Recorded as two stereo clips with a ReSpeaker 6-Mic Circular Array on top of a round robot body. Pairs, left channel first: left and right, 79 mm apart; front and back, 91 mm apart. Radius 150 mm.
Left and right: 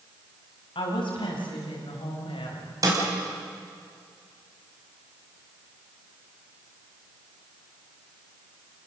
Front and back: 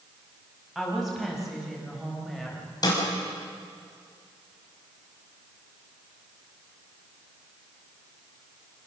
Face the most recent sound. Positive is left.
turn(degrees=-45)